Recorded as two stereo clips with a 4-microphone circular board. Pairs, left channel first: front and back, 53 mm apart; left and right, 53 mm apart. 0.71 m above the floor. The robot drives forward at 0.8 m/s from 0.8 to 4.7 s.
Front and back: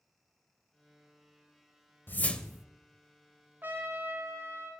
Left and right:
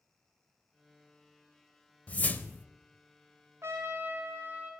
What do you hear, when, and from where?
2.1 s a whoosh: 35° left, 0.6 m; by 2.6 s 110° left, 0.5 m
3.6 s a trumpet: 125° right, 1.3 m; by 4.7 s 145° right, 2.0 m